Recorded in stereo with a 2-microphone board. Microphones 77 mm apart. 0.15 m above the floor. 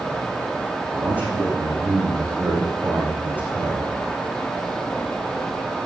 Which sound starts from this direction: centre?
A man speaking, at 0.9 s.